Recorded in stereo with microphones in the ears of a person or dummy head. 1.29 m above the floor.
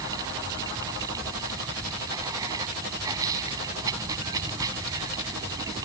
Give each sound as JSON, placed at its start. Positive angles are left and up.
{"t": 0.0, "sound": "running water", "side_deg": -20}